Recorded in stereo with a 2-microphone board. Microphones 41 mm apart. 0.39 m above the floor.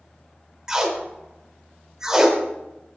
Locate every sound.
0.7 s tape being pulled: 15° right (ahead or behind), 0.8 m